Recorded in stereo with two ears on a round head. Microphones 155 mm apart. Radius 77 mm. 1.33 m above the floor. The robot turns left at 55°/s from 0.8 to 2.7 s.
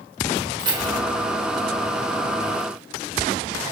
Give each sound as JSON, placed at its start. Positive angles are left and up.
{"t": 0.6, "sound": "keys jangling", "side_deg": -30, "distance_m": 3.0}